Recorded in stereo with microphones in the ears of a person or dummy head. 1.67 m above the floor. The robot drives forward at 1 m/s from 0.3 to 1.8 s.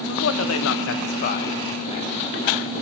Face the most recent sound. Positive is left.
turn(degrees=40)  # may be behind; listen again after turning